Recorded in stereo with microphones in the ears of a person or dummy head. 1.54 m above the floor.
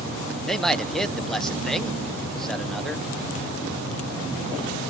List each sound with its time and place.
0.5 s a man speaking: centre (ahead or behind), 1.0 m